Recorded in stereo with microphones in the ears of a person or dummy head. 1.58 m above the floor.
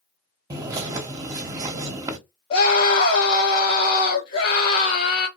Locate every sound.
0.5 s a bird: 15° right (ahead or behind), 0.8 m
2.5 s a scream: 25° left (ahead or behind), 2 m